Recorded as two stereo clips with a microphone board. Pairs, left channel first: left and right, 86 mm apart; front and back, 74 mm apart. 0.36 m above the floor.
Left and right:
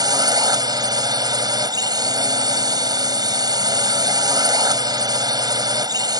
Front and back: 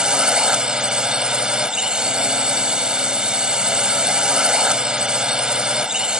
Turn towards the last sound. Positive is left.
turn(degrees=-105)